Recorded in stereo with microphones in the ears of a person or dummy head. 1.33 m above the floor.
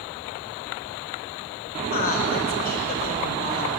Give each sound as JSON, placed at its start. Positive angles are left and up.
{"t": 1.8, "sound": "a woman speaking", "side_deg": 45, "distance_m": 5.5}